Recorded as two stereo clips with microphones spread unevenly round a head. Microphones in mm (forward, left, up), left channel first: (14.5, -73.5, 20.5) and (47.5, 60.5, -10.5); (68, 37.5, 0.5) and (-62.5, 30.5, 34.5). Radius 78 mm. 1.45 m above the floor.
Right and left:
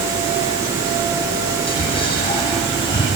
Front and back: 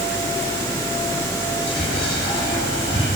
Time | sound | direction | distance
1.7 | whispering | 55° right | 9 m